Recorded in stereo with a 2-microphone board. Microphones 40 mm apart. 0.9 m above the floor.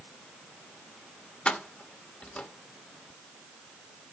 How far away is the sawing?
I don't hear sawing.